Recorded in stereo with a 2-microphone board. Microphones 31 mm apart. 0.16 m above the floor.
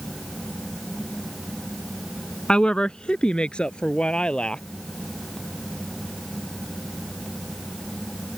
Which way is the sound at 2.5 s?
30° left (ahead or behind).